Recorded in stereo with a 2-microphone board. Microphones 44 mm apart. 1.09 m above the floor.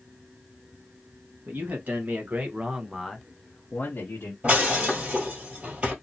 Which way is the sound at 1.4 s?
50° right (ahead or behind).